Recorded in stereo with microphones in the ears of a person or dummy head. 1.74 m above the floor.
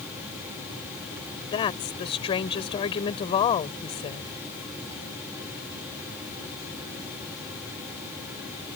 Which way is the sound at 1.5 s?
35° left (ahead or behind).